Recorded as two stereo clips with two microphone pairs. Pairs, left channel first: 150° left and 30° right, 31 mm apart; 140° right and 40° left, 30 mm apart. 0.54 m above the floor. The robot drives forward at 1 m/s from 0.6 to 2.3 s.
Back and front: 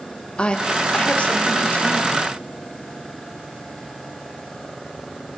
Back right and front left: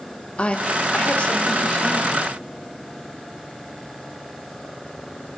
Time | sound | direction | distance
0.4 | a woman speaking | 165° right | 0.9 m